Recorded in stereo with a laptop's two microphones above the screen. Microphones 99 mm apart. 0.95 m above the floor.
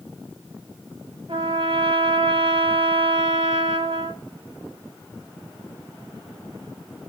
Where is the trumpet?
85° right, 5.5 m.